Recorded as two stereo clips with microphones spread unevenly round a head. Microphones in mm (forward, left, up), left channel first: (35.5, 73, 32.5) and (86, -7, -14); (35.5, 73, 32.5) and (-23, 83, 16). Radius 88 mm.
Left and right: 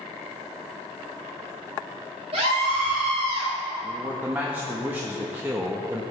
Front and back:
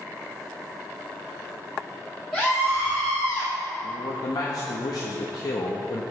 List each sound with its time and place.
2.3 s a scream: 100° right, 3 m
3.8 s a man speaking: 5° left, 1.0 m